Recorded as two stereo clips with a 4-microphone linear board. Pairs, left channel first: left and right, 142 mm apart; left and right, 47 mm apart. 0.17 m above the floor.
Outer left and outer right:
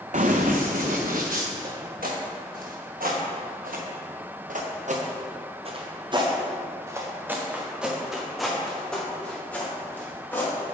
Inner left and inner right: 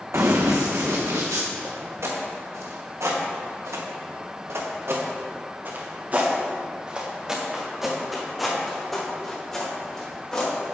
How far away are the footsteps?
About 2.5 m.